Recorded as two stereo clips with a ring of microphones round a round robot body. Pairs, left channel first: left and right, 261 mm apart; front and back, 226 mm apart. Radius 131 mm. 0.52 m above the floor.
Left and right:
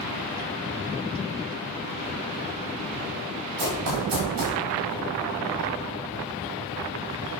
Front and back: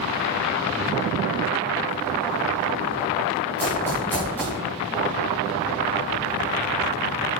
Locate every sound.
3.6 s running footsteps: 85° right, 10 m